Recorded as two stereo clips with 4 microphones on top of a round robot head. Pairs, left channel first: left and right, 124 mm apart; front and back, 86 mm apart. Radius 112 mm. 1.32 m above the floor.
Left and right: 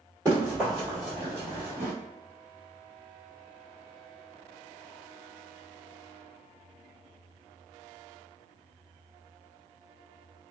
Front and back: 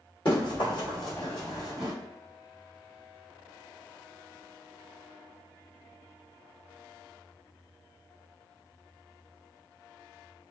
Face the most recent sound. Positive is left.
turn(degrees=-100)